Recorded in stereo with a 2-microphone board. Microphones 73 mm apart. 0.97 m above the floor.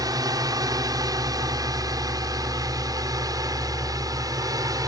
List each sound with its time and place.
0.0 s a drone: 55° right (ahead or behind)